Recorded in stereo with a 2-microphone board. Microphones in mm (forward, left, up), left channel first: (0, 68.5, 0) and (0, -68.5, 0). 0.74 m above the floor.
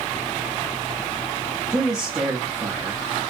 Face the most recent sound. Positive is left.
turn(degrees=-5)  # may be behind; listen again after turning